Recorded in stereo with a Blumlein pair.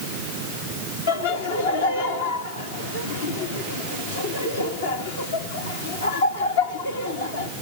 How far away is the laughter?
About 3 m.